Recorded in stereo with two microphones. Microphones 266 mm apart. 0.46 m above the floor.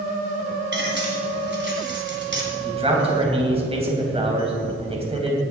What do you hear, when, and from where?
0.7 s cutlery clinking: 45° right (ahead or behind), 2.5 m
2.6 s a man speaking: 20° right (ahead or behind), 3 m